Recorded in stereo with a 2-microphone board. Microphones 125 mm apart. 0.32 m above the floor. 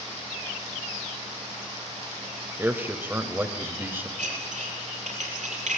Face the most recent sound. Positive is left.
turn(degrees=-80)